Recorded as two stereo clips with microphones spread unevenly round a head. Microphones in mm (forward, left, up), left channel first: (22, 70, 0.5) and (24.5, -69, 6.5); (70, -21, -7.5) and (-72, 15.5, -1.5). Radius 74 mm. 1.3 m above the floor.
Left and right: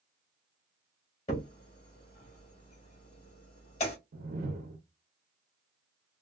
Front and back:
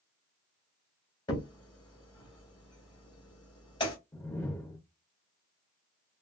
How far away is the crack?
About 2.5 m.